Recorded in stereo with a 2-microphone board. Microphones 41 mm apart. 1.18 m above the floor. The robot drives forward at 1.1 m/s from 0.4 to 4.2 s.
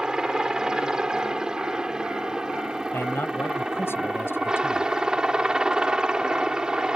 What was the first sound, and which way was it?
A helicopter, 15° right (ahead or behind).